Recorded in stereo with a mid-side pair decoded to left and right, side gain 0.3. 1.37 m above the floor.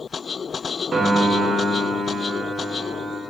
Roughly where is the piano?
Ahead right.